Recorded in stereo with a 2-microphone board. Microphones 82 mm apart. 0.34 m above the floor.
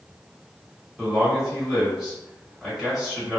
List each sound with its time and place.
1.0 s a man speaking: 5° right (ahead or behind), 1.8 m